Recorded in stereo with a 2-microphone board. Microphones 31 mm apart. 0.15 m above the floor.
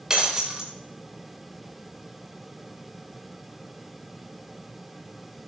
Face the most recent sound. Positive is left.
turn(degrees=-25)  # may be behind; listen again after turning